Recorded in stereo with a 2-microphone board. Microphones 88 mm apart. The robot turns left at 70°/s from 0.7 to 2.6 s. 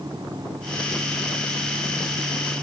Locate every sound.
Only background noise.